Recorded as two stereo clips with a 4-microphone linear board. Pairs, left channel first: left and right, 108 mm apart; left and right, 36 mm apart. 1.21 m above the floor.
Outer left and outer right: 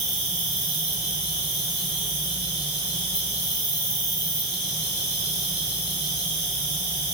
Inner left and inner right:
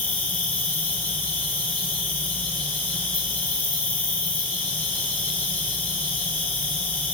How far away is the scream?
I don't hear a scream.